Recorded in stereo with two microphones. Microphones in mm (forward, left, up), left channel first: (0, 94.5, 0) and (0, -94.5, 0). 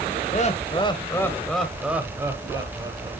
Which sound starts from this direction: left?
Laughter, at 0.3 s.